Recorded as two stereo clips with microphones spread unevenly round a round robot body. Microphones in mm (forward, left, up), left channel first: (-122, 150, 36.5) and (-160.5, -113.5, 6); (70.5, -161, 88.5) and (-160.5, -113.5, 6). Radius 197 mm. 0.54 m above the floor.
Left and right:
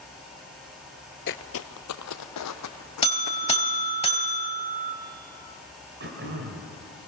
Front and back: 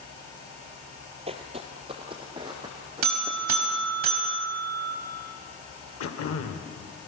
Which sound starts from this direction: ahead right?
Throat clearing, at 6.0 s.